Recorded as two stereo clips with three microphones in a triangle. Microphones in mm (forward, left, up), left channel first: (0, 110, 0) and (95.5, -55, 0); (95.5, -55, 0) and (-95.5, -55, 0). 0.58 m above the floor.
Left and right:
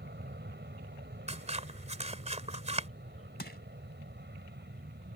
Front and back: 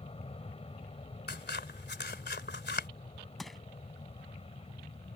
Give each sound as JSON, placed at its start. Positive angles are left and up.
{"t": 0.0, "sound": "an aircraft", "azimuth_deg": -55}
{"t": 1.3, "sound": "scissors", "azimuth_deg": -10}
{"t": 3.4, "sound": "crushing", "azimuth_deg": 90}